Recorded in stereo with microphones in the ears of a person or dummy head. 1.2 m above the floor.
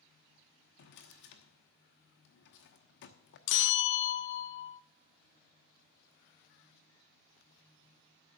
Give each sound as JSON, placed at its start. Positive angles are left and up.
{"t": 0.8, "sound": "a drawer", "side_deg": 60, "distance_m": 1.0}
{"t": 3.5, "sound": "a bell", "side_deg": 65, "distance_m": 0.5}